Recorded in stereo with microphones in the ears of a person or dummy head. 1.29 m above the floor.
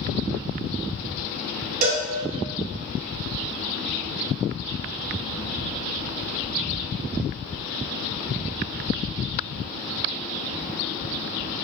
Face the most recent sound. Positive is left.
turn(degrees=-40)  # may be behind; listen again after turning